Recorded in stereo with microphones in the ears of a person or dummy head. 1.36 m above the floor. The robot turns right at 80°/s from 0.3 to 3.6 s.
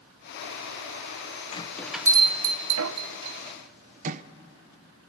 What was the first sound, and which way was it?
A bell, 30° left (ahead or behind).